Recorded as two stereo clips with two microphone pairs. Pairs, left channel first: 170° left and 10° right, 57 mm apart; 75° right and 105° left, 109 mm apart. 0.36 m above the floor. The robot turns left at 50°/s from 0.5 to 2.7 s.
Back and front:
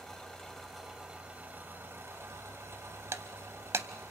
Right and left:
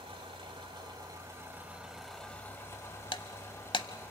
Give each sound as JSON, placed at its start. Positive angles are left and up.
{"t": 0.0, "sound": "an engine running", "azimuth_deg": 90, "distance_m": 1.8}
{"t": 3.1, "sound": "breaking glass", "azimuth_deg": -40, "distance_m": 0.6}